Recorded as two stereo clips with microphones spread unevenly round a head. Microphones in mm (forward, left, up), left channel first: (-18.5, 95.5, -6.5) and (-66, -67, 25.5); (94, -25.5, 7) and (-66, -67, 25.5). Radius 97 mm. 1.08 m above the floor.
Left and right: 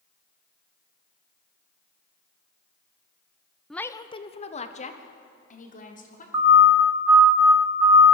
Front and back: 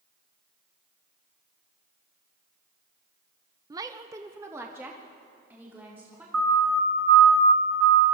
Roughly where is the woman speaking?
Behind left.